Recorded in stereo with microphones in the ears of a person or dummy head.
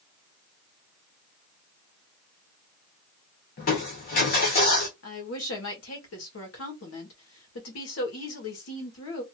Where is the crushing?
35° left (ahead or behind), 1.0 m.